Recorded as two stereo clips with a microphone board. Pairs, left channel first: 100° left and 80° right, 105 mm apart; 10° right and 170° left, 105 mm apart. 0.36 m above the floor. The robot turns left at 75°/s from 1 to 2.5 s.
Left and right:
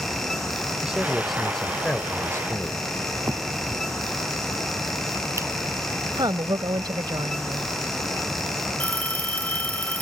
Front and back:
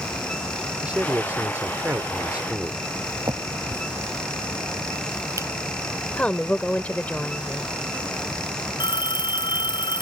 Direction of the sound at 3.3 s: 135° right.